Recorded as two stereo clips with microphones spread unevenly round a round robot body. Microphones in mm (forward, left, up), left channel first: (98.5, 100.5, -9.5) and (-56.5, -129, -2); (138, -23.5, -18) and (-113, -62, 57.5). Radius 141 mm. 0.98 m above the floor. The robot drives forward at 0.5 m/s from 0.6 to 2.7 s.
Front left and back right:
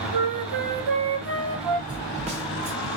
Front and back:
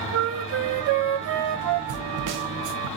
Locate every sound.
0.1 s a flute: 125° right, 0.9 m; by 1.8 s 145° right, 1.3 m
1.9 s a snare drum: 165° left, 0.5 m; by 2.9 s 170° left, 0.9 m